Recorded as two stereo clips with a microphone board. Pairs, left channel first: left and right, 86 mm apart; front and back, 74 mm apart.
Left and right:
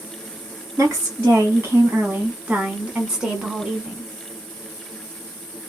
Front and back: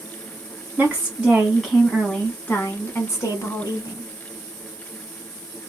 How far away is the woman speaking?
About 1.4 m.